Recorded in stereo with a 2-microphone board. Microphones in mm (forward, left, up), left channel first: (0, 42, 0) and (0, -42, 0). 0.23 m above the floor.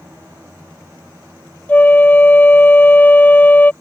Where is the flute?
20° left (ahead or behind).